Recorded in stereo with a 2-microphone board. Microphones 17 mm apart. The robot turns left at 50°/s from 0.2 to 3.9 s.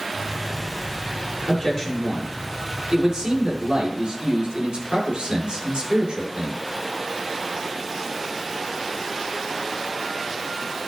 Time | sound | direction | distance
1.5 | a man speaking | 40° left | 7 m